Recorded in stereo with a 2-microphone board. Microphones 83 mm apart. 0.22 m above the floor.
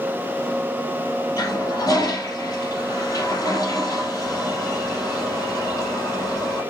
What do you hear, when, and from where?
1.4 s a toilet flushing: 50° left (ahead or behind), 3 m